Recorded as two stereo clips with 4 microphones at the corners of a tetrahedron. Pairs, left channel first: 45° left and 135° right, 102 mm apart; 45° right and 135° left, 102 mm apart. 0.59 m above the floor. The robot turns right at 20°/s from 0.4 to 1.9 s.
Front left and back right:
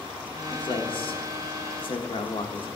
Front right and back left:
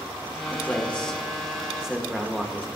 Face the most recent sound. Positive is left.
turn(degrees=50)